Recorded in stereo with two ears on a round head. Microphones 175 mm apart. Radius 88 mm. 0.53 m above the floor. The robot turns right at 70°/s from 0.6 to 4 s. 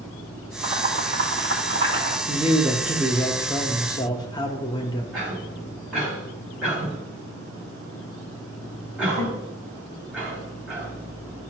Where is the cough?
5° right (ahead or behind), 4 m.